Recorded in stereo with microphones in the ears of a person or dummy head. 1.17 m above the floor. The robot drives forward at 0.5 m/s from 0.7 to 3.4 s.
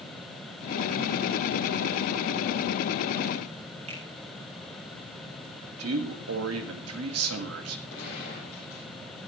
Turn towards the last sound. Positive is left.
turn(degrees=75)  # may be behind; listen again after turning